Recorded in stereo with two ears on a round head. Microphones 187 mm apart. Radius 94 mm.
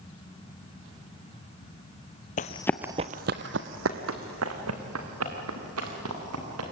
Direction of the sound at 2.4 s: 40° left (ahead or behind).